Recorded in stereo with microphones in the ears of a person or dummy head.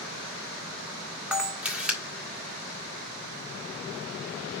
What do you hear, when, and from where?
1.3 s a camera shutter: 5° right (ahead or behind), 1.5 m